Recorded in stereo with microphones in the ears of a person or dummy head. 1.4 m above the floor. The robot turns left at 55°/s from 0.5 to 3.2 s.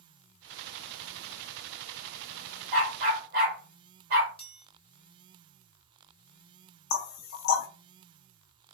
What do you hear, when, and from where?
2.7 s a dog barking: 35° right (ahead or behind), 1.6 m; by 4.3 s 50° right (ahead or behind), 1.6 m
4.4 s a chime: 25° left (ahead or behind), 0.6 m
6.9 s knocking: 55° left (ahead or behind), 0.5 m